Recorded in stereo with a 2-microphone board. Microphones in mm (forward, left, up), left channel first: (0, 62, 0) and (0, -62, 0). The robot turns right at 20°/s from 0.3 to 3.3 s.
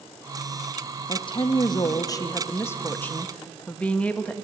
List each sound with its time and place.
1.1 s a woman speaking: 125° left, 0.7 m; by 4.3 s 170° left, 0.7 m